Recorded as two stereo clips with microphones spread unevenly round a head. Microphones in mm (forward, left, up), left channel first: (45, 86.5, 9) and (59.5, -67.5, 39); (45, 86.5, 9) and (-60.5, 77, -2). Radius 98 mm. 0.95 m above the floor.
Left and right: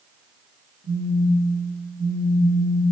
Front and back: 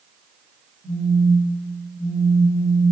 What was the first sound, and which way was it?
A phone buzzing, 125° right.